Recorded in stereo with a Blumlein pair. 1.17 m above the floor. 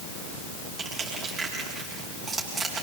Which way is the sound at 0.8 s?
20° right.